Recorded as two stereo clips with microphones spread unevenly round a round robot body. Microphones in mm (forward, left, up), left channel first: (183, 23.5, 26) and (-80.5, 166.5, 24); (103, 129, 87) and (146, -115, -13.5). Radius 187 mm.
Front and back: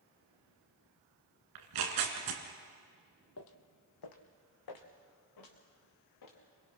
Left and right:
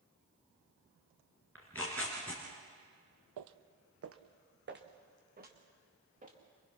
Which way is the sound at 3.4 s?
80° right.